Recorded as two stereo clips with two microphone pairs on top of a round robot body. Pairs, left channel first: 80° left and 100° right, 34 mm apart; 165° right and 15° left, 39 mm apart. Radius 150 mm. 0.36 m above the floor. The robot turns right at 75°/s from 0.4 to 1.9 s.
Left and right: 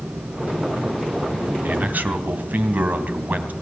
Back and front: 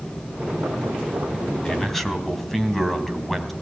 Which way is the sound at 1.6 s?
95° right.